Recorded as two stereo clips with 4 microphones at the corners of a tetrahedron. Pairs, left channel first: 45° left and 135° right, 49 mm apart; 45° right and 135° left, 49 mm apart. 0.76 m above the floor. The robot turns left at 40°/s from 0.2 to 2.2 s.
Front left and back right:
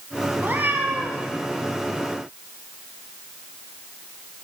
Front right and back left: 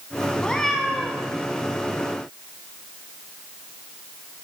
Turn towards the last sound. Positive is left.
turn(degrees=175)